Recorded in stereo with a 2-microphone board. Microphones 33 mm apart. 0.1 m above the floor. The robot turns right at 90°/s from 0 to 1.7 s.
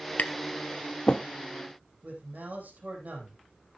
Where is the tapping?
55° left (ahead or behind), 0.6 m; by 1.2 s 25° left (ahead or behind), 0.6 m.